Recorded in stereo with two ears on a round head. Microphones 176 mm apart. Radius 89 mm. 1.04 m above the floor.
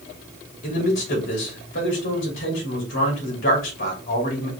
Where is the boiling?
No boiling in this recording.